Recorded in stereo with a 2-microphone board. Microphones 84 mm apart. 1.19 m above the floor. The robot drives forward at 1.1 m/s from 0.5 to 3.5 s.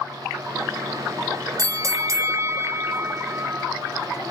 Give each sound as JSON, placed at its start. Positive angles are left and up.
{"t": 1.6, "sound": "a bell", "side_deg": -45}